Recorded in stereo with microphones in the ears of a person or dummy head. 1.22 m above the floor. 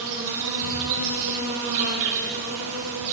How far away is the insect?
About 1.9 m.